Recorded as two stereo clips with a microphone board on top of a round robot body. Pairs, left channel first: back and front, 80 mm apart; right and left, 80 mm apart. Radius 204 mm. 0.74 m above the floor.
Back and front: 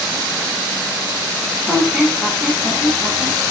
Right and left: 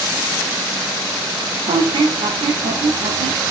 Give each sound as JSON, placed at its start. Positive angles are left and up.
{"t": 1.7, "sound": "a squeak", "azimuth_deg": 85, "distance_m": 0.8}